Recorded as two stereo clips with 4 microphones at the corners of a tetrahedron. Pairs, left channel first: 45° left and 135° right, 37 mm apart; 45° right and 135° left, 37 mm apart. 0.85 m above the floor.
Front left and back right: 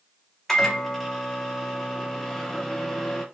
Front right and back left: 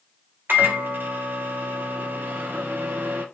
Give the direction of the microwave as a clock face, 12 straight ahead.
8 o'clock.